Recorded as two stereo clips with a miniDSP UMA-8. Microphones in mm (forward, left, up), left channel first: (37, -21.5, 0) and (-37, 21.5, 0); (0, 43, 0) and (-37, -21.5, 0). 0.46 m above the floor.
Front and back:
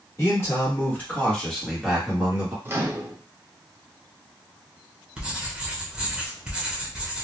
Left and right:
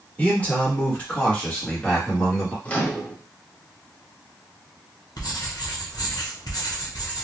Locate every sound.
0.2 s a man speaking: straight ahead, 1.4 m; by 2.5 s 145° left, 1.1 m
2.6 s a microwave: 120° left, 0.6 m
5.2 s writing: 75° left, 0.7 m